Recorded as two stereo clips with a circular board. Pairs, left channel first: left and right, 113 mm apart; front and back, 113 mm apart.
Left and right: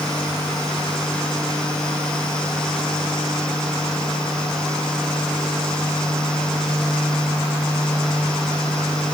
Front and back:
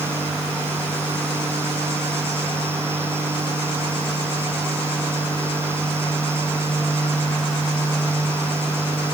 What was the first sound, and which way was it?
Only background noise.